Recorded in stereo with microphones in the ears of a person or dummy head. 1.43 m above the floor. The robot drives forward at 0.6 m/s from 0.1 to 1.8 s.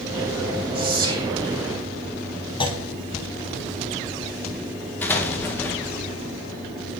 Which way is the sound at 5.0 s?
10° left (ahead or behind).